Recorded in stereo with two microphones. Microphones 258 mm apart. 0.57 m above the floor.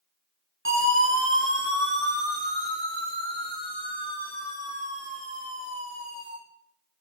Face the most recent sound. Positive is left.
turn(degrees=-20)  # may be behind; listen again after turning